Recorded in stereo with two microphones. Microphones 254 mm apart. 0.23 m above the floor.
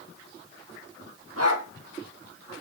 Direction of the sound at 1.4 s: 70° right (ahead or behind).